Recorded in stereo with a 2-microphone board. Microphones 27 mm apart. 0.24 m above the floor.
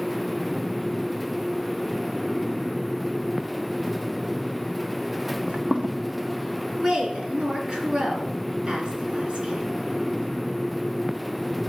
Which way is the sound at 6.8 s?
35° right (ahead or behind).